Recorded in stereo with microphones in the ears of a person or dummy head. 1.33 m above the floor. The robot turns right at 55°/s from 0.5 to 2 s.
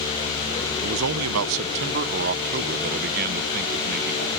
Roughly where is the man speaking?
Behind right.